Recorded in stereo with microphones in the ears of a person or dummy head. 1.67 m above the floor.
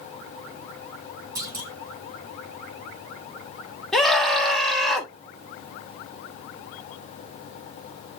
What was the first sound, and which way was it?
A clunk, 20° right (ahead or behind).